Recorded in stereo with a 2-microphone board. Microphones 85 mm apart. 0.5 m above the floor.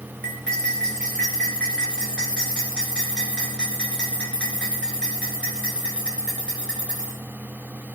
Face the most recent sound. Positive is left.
turn(degrees=10)  # may be behind; listen again after turning